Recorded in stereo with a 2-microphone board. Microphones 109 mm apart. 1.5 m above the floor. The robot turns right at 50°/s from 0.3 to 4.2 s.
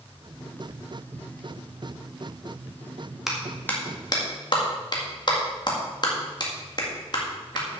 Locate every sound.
3.3 s a clap: 5° right (ahead or behind), 2 m; by 7.8 s 45° left (ahead or behind), 2 m